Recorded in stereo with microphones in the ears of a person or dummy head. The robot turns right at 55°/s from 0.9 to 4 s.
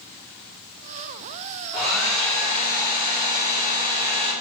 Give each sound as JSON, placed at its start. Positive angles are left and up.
{"t": 1.7, "sound": "a hair dryer", "azimuth_deg": -20, "distance_m": 1.4}